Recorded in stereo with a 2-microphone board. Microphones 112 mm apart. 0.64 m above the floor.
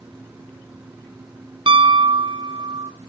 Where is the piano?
45° right (ahead or behind), 0.7 m.